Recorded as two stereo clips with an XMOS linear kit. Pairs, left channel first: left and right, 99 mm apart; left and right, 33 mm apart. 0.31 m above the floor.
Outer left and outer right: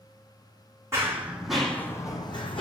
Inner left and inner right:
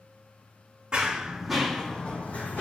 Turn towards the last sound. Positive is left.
turn(degrees=60)  # may be behind; listen again after turning